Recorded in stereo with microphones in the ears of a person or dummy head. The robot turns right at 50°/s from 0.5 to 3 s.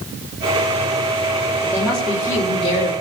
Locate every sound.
1.6 s a woman speaking: 20° right, 3.5 m; by 2.9 s 45° left, 3.5 m